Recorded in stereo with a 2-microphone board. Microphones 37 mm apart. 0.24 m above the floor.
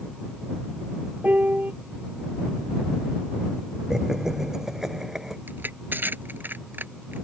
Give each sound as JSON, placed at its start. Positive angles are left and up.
{"t": 1.2, "sound": "a piano", "side_deg": -45}
{"t": 3.9, "sound": "laughter", "side_deg": -10}
{"t": 5.5, "sound": "crushing", "side_deg": -60}